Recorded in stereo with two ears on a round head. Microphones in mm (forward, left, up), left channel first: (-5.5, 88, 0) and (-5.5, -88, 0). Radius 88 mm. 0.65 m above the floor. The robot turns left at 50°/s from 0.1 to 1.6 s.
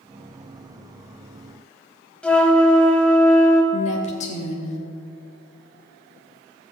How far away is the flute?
About 1.2 m.